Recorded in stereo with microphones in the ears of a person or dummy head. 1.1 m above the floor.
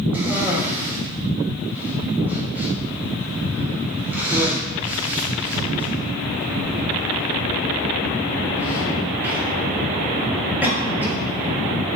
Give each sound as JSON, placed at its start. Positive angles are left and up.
{"t": 0.1, "sound": "a cough", "side_deg": -15, "distance_m": 0.9}